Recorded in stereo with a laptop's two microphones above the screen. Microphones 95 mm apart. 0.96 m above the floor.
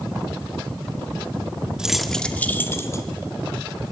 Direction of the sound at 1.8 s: 10° right (ahead or behind).